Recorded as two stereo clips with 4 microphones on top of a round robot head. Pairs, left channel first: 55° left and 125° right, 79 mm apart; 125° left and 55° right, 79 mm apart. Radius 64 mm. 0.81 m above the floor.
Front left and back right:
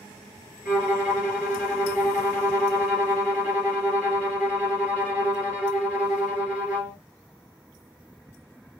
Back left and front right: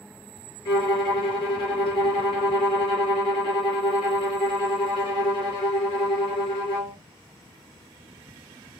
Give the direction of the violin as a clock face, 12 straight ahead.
7 o'clock.